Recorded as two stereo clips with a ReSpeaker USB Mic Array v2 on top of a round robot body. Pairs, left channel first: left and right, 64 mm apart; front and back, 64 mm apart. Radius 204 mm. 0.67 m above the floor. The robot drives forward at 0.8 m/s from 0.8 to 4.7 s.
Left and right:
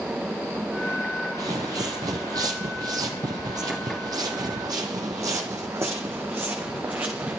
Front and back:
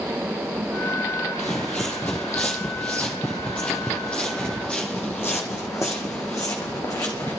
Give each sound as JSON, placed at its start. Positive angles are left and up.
{"t": 1.4, "sound": "footsteps", "azimuth_deg": -65, "distance_m": 0.9}